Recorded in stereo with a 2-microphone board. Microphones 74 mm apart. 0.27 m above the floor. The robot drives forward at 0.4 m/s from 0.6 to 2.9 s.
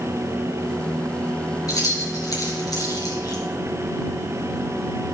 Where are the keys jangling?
55° left (ahead or behind), 3 m; by 3.4 s 65° left (ahead or behind), 2.5 m.